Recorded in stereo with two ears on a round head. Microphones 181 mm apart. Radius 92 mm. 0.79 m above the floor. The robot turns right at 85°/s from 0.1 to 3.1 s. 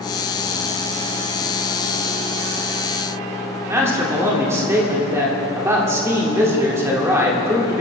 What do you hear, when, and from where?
3.7 s a man speaking: 15° right (ahead or behind), 2.5 m